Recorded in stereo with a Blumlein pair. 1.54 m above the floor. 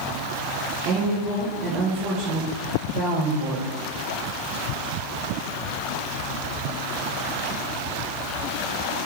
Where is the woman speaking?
40° right, 1.0 m.